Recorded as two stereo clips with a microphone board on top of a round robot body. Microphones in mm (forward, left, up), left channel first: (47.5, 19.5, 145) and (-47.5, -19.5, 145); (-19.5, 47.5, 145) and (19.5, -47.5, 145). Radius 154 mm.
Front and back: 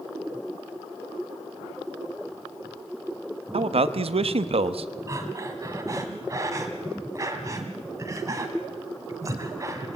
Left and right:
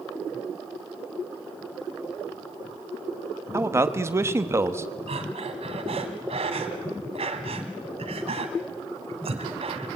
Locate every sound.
3.5 s a man speaking: 130° right, 1.2 m
5.1 s breathing: 95° right, 1.6 m